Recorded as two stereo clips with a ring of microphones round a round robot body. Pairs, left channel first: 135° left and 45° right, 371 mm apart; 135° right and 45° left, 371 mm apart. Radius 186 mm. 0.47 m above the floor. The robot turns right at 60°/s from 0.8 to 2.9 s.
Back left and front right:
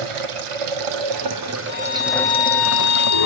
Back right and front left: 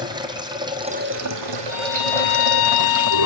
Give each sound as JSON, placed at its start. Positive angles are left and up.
{"t": 0.0, "sound": "running water", "azimuth_deg": -35, "distance_m": 1.9}
{"t": 1.7, "sound": "a violin", "azimuth_deg": 110, "distance_m": 1.3}